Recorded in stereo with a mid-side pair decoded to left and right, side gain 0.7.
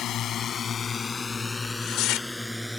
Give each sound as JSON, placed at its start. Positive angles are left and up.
{"t": 0.0, "sound": "a drone", "azimuth_deg": 45}
{"t": 1.6, "sound": "tearing paper", "azimuth_deg": 60}